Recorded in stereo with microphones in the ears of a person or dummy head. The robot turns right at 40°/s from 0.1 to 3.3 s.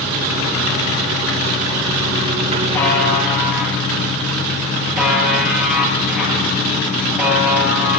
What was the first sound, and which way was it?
A buzzer, 15° left (ahead or behind).